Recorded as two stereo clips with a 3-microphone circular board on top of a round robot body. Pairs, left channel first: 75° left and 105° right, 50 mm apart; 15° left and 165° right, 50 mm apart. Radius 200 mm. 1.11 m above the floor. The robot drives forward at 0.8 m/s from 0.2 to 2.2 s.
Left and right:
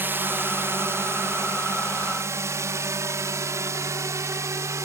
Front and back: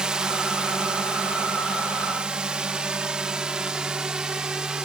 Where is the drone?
95° right; by 4.9 s 90° right.